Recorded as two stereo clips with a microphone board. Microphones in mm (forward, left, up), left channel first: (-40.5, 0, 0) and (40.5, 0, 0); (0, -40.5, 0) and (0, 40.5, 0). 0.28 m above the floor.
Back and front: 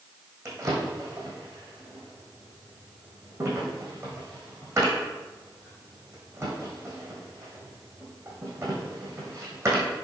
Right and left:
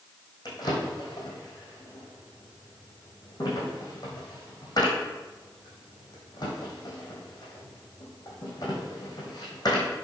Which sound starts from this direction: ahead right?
A drawer, at 0.5 s.